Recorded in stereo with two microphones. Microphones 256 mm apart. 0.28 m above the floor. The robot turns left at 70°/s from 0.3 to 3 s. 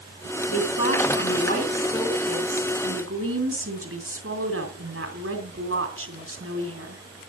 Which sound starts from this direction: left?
A woman speaking, at 0.5 s.